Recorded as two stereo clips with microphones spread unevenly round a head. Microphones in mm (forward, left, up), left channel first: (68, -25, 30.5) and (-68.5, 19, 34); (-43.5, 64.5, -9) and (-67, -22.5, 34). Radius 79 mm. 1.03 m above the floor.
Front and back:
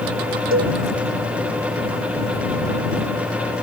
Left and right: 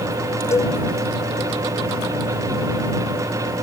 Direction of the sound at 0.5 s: 135° left.